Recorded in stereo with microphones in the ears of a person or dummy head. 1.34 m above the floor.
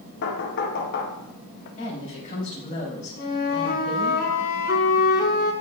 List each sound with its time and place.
0.2 s knocking: 60° left (ahead or behind), 0.8 m
1.8 s a woman speaking: 40° left (ahead or behind), 3.5 m
3.2 s a flute: 45° left (ahead or behind), 1.5 m